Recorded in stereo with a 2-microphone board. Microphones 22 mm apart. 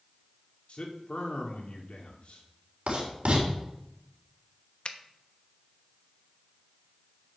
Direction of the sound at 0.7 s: 70° left (ahead or behind).